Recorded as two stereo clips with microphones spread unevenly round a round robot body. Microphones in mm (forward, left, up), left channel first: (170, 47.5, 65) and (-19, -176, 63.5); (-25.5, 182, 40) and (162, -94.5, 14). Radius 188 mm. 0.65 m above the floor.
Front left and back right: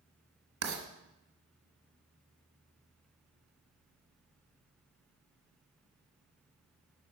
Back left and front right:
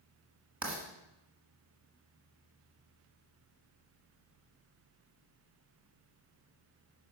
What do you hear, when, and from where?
0.6 s writing: 135° right, 1.4 m